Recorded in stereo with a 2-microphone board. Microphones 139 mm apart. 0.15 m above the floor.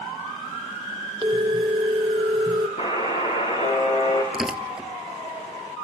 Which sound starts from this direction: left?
A buzzer, at 2.8 s.